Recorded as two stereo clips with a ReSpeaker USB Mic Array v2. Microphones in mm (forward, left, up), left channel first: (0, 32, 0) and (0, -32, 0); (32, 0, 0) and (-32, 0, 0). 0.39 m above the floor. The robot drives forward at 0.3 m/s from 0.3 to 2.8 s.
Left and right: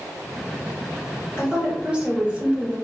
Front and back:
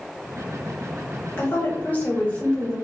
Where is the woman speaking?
25° right, 1.0 m; by 2.8 s 55° right, 0.9 m.